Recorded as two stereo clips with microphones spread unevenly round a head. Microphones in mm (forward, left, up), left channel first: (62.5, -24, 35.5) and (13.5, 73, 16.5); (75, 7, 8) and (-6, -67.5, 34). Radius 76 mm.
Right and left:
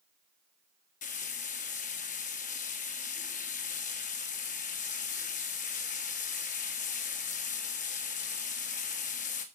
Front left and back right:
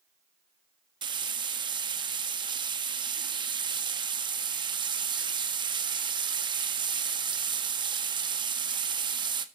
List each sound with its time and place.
1.0 s frying: 95° right, 1.5 m